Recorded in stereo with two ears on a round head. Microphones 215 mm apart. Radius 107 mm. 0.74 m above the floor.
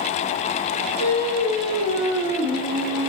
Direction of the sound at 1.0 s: 40° left (ahead or behind).